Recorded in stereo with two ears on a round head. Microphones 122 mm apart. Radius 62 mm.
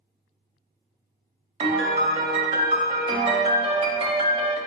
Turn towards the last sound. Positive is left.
turn(degrees=-40)  # may be behind; listen again after turning